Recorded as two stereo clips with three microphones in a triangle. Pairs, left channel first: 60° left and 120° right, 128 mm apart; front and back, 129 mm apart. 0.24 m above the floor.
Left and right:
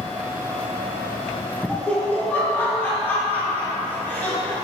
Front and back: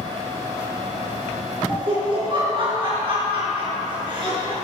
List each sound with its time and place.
1.7 s laughter: 135° left, 3 m